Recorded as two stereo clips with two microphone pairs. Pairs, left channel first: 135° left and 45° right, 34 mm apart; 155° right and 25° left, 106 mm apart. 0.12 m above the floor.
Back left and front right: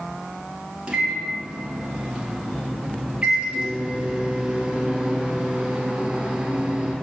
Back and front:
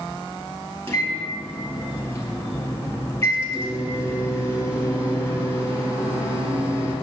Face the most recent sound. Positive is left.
turn(degrees=-100)